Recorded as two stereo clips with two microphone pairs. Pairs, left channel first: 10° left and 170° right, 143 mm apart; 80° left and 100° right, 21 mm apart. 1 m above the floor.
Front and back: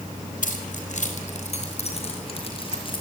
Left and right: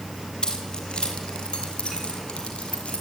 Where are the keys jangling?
30° left, 4 m; by 3.0 s 60° left, 5 m.